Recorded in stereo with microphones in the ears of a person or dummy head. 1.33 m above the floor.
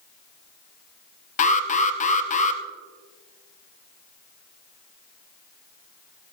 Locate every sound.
1.4 s an alarm: 40° left (ahead or behind), 0.7 m